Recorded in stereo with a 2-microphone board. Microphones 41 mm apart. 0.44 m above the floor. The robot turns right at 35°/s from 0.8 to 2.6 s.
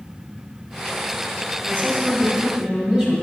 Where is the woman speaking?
60° right, 2.5 m; by 3.1 s 25° right, 2.5 m.